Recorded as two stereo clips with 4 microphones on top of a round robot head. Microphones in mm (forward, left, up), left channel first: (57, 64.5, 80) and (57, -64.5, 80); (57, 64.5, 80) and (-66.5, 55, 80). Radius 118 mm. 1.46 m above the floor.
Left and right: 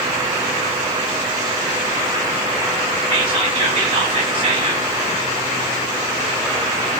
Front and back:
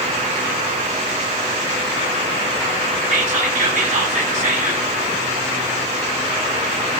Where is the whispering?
145° right, 1.4 m.